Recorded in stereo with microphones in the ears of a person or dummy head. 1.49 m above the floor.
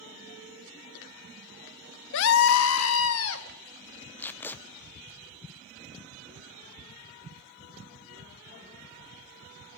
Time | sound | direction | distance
2.1 | a scream | 70° left (ahead or behind) | 0.9 m
4.2 | tape being pulled | 10° left (ahead or behind) | 0.5 m